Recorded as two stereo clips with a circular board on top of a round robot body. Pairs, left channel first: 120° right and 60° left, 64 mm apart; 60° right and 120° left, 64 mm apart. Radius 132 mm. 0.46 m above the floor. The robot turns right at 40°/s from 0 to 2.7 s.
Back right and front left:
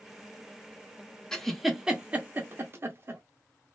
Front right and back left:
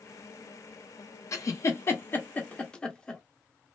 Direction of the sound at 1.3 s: 40° right.